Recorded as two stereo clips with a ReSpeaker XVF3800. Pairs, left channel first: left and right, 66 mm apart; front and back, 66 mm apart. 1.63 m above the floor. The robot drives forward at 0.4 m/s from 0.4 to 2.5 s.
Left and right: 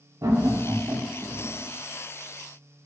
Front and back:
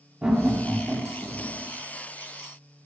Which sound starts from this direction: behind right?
Laughter, at 0.2 s.